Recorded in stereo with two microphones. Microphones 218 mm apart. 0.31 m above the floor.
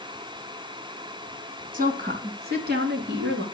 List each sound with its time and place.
1.7 s a woman speaking: 40° right (ahead or behind), 2.5 m; by 3.4 s 55° right (ahead or behind), 3.5 m